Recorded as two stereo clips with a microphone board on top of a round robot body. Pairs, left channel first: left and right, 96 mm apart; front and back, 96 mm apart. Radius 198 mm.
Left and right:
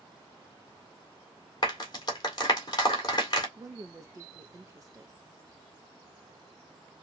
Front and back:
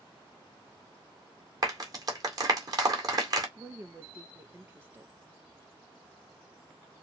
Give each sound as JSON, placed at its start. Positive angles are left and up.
{"t": 1.6, "sound": "a clap", "azimuth_deg": 135, "distance_m": 2.0}
{"t": 3.6, "sound": "a woman speaking", "azimuth_deg": -120, "distance_m": 0.8}